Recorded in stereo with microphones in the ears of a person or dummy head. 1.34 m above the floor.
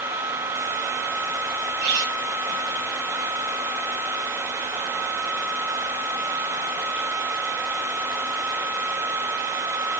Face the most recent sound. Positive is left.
turn(degrees=-60)  # may be behind; listen again after turning